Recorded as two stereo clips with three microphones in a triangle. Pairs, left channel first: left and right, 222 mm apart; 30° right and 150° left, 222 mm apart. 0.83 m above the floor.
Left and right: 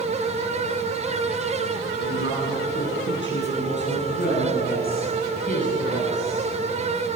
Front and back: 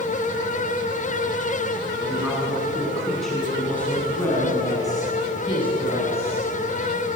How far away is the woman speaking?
About 7.5 m.